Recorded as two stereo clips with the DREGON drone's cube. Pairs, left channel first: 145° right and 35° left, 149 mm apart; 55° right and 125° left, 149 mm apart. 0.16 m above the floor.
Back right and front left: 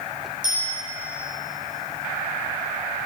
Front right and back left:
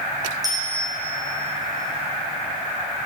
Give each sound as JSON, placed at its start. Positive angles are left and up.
{"t": 0.4, "sound": "a bicycle bell", "azimuth_deg": 60, "distance_m": 6.5}